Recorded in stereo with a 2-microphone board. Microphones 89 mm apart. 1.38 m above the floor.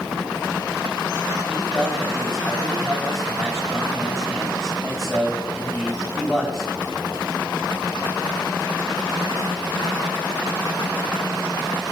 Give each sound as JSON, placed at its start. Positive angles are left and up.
{"t": 1.5, "sound": "a man speaking", "side_deg": 0, "distance_m": 7.5}